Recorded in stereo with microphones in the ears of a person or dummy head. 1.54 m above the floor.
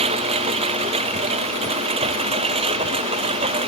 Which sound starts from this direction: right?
A lawn mower, at 0.0 s.